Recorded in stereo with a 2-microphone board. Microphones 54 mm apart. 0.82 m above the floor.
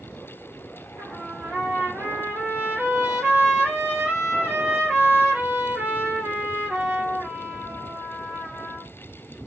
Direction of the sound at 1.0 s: 40° right (ahead or behind).